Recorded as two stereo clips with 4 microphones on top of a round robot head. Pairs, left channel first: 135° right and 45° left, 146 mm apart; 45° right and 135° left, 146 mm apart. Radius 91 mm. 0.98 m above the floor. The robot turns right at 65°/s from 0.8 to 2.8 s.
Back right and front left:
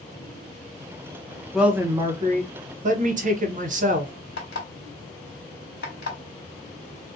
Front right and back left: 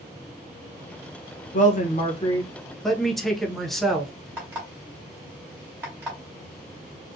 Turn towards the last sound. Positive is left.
turn(degrees=-150)